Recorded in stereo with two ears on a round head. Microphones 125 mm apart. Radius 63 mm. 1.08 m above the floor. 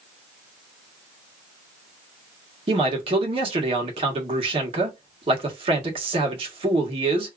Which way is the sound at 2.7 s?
40° right (ahead or behind).